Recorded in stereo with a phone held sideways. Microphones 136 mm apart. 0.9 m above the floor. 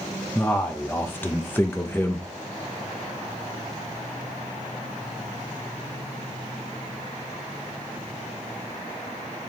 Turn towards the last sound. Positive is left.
turn(degrees=15)  # may be behind; listen again after turning